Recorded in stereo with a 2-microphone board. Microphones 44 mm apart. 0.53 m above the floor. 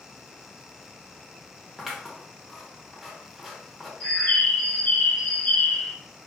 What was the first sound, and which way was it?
Scissors, 5° right (ahead or behind).